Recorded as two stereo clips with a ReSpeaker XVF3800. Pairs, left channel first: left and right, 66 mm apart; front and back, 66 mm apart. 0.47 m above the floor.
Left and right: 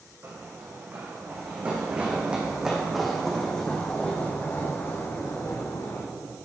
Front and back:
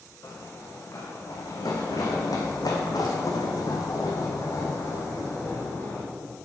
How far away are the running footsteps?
About 2.5 m.